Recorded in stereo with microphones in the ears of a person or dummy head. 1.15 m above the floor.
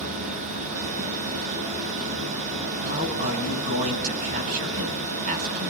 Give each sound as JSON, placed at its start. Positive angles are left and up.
{"t": 0.0, "sound": "a machine running", "side_deg": -40, "distance_m": 2.5}
{"t": 2.8, "sound": "a man speaking", "side_deg": -45, "distance_m": 9.0}